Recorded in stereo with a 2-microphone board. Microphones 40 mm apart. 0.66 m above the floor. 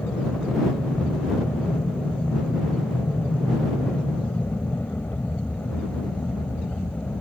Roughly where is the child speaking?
I don't hear a child speaking.